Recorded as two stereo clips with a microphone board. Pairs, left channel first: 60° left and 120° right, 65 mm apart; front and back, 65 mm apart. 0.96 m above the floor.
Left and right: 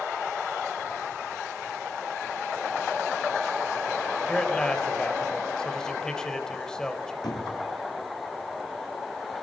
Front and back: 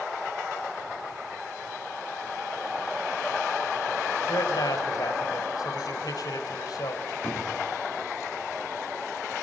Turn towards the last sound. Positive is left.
turn(degrees=60)